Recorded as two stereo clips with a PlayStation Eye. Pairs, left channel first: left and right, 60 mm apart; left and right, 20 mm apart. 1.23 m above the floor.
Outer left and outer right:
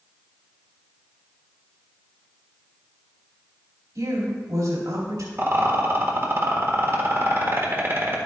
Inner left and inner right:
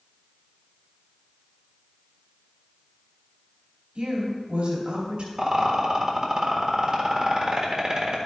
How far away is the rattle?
About 1.5 m.